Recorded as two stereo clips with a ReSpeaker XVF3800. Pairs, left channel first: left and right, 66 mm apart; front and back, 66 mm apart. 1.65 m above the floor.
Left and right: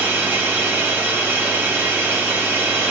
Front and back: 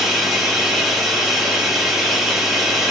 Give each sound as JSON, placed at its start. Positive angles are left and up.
{"t": 0.0, "sound": "running water", "azimuth_deg": -95, "distance_m": 1.1}